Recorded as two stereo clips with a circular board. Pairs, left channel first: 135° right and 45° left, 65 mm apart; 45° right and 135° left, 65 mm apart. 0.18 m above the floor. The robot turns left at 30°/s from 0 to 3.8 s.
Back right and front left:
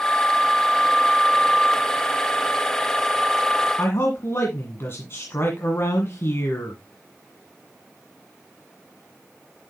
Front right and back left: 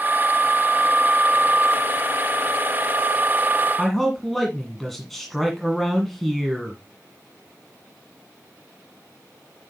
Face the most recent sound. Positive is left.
turn(degrees=-130)